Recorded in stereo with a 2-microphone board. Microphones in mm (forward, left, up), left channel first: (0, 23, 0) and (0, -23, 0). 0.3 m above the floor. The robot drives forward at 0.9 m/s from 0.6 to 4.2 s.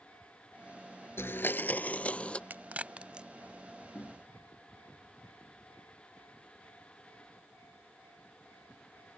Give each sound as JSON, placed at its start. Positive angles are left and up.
{"t": 1.2, "sound": "a blender", "side_deg": 70}
{"t": 2.5, "sound": "a crack", "side_deg": -45}
{"t": 4.0, "sound": "knocking", "side_deg": 65}